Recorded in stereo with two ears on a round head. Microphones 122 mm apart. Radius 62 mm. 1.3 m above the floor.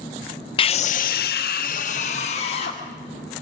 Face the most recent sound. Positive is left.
turn(degrees=40)  # may be behind; listen again after turning